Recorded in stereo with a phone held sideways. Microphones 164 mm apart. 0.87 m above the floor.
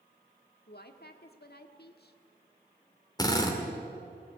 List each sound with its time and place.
0.7 s a woman speaking: 70° left (ahead or behind), 1.6 m
3.2 s a drill: 25° left (ahead or behind), 2.5 m